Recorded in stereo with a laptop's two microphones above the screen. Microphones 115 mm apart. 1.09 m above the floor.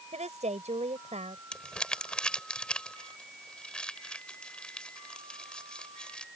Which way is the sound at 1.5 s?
10° left (ahead or behind).